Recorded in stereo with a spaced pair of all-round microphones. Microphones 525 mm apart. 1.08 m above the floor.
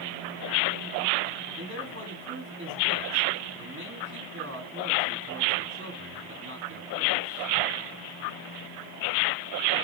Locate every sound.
1.6 s a man speaking: 25° right (ahead or behind), 2.0 m